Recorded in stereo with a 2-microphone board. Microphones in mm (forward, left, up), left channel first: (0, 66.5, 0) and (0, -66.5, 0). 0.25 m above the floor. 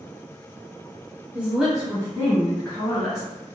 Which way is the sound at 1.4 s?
10° right (ahead or behind).